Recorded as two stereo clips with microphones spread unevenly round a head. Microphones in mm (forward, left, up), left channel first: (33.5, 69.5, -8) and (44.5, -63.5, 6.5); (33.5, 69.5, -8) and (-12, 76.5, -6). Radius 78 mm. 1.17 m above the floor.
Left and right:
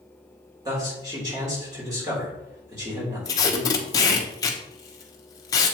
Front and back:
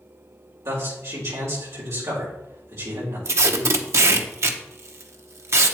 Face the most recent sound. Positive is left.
turn(degrees=160)